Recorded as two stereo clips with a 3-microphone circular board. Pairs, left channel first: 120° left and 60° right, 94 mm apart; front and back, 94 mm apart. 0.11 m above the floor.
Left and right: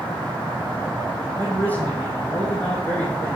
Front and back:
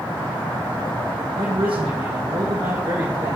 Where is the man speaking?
170° right, 3.5 m.